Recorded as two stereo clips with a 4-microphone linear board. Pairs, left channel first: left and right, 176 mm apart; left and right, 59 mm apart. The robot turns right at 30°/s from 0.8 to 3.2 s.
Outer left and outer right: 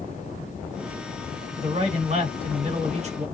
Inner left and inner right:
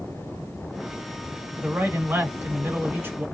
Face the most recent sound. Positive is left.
turn(degrees=-70)